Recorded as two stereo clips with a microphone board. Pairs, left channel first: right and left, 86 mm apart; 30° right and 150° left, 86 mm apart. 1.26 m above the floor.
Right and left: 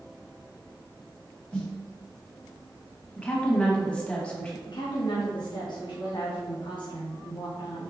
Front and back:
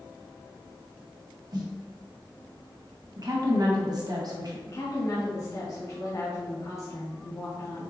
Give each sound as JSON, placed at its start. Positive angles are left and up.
{"t": 1.5, "sound": "a snare drum", "azimuth_deg": -175, "distance_m": 1.2}
{"t": 3.2, "sound": "a woman speaking", "azimuth_deg": -170, "distance_m": 1.2}
{"t": 4.7, "sound": "a woman speaking", "azimuth_deg": -75, "distance_m": 1.0}